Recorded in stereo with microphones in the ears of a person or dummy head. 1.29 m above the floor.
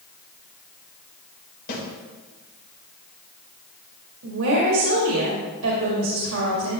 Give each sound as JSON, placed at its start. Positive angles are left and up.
{"t": 1.7, "sound": "a snare drum", "side_deg": 55, "distance_m": 4.0}
{"t": 4.2, "sound": "a woman speaking", "side_deg": -70, "distance_m": 2.0}